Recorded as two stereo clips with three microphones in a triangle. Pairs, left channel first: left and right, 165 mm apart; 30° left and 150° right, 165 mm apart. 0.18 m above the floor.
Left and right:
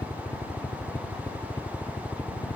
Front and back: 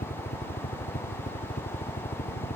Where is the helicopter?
15° left.